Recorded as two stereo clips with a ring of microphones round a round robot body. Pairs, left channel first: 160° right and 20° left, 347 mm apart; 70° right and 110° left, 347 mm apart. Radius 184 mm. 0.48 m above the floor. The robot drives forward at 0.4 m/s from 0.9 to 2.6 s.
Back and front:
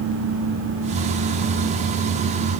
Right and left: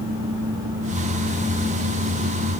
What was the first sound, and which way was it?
Only background noise.